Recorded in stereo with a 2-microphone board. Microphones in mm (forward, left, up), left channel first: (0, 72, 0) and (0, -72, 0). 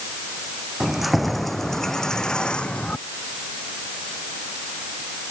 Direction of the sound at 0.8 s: Centre (ahead or behind).